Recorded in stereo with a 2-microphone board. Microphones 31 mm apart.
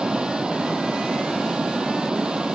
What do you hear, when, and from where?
0.0 s running water: 30° right (ahead or behind)